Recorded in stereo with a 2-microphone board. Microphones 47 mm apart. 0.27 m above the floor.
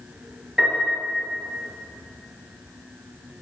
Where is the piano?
10° right (ahead or behind), 4.5 m.